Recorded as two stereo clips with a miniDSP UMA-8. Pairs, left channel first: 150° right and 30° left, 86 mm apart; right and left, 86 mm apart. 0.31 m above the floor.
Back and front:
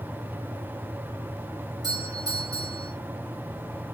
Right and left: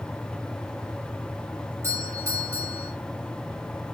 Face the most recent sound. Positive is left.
turn(degrees=40)